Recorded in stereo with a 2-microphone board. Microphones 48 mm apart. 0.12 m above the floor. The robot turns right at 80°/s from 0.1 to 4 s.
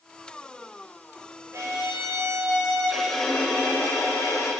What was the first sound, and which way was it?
A violin, 125° right.